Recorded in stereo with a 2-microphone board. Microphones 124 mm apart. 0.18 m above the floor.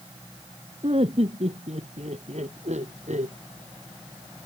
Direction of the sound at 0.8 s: 55° right (ahead or behind).